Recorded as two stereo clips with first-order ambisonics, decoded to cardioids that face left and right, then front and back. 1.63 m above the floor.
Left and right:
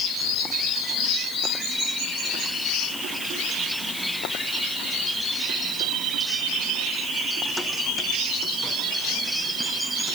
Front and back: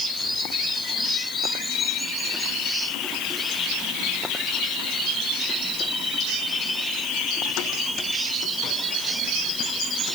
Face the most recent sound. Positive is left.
No sound to turn to.